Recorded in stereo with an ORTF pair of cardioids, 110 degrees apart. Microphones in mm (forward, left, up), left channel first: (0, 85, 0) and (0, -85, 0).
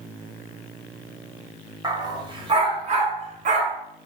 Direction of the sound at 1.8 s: 25° right.